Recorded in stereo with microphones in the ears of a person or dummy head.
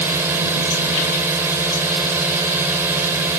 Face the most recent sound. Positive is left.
turn(degrees=-10)  # may be behind; listen again after turning